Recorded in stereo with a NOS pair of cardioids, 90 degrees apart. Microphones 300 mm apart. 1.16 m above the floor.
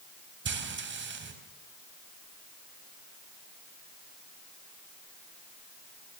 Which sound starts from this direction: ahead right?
Frying, at 0.5 s.